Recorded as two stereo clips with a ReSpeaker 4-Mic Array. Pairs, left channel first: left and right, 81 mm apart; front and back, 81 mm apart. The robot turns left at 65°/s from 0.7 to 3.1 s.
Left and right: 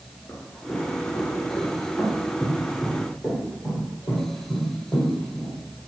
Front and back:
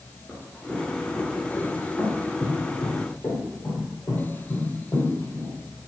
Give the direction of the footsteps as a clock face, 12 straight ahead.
9 o'clock.